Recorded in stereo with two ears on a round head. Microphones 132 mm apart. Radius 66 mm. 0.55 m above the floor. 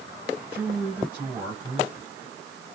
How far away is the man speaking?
About 3.5 m.